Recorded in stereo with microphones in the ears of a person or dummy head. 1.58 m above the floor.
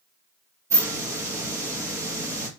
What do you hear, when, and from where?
0.7 s a hiss: 15° right (ahead or behind), 0.8 m